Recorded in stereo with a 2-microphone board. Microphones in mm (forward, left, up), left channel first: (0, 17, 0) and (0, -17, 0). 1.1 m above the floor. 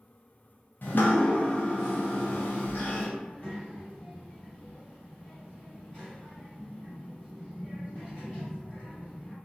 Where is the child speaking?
70° left (ahead or behind), 2.0 m.